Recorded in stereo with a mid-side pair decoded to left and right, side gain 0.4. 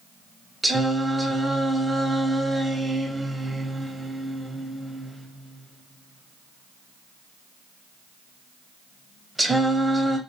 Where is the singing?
20° right, 0.7 m.